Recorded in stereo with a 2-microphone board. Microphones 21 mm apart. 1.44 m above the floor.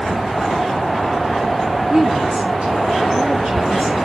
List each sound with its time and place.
1.9 s a woman speaking: 70° right (ahead or behind), 3 m